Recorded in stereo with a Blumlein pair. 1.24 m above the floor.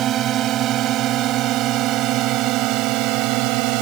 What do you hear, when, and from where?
0.0 s a drone: 30° right; by 3.8 s 40° right